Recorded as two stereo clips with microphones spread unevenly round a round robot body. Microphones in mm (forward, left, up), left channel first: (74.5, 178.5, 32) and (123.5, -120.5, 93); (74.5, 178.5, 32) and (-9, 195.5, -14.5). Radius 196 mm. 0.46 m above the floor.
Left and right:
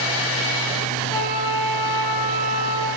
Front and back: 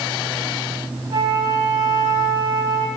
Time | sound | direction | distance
1.1 | a flute | 175° left | 2.0 m